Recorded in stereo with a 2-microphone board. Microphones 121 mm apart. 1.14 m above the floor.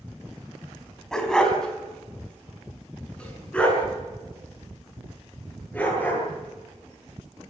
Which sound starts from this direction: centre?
A dog barking, at 1.1 s.